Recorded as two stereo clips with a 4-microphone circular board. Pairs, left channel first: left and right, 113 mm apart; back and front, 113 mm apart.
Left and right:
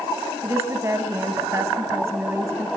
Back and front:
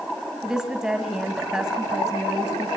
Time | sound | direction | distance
0.4 | a woman speaking | 75° right | 1.6 m